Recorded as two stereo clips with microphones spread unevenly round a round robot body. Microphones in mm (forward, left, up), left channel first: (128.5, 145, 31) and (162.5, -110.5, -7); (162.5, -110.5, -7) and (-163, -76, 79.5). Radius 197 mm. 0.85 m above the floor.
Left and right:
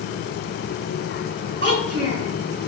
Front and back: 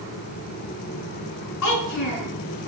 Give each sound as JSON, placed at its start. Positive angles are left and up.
{"t": 1.6, "sound": "a child speaking", "azimuth_deg": -40, "distance_m": 6.0}